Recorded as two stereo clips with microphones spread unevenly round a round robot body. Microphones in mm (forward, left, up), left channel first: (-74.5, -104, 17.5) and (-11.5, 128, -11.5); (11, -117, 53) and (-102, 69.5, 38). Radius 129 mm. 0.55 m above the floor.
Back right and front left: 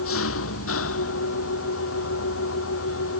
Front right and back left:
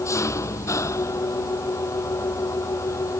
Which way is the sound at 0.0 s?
135° right.